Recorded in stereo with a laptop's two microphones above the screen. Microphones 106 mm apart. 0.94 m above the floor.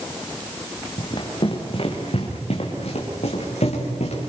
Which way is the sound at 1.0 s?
50° left (ahead or behind).